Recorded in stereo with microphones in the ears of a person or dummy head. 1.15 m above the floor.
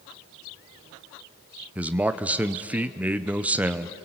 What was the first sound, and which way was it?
A man speaking, 5° right (ahead or behind).